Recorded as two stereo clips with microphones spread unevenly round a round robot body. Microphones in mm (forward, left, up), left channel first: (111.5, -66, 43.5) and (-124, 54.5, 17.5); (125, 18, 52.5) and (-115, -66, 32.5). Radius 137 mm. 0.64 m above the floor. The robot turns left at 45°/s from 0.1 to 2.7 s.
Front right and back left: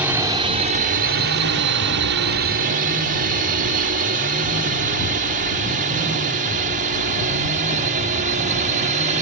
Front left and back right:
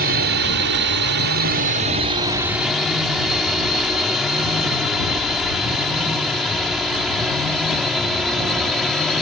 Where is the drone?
130° right; by 9.2 s 110° left.